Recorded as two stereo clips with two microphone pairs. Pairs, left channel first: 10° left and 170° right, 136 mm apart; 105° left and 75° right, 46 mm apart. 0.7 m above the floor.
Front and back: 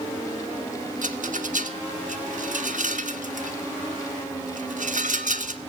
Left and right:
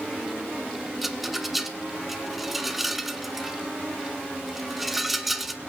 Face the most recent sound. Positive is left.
turn(degrees=-160)